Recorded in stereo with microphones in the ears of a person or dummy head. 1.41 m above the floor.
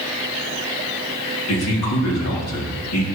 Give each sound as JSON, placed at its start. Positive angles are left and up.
{"t": 1.5, "sound": "a man speaking", "side_deg": 85, "distance_m": 3.0}